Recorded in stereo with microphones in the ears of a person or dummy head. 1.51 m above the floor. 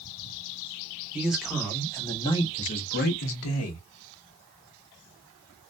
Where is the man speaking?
10° right (ahead or behind), 1.1 m; by 3.8 s 80° left, 0.8 m.